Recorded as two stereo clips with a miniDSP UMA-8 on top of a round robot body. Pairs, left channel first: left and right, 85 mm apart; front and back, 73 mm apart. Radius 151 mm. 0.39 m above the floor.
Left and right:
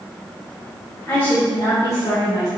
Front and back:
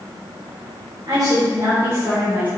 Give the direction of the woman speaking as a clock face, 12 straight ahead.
7 o'clock.